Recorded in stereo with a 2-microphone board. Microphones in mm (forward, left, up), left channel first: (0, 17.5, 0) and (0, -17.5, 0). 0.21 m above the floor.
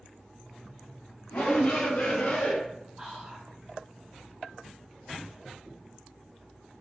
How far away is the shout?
About 2 m.